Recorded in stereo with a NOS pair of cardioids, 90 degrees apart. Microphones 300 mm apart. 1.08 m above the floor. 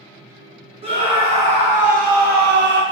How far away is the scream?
About 1.4 m.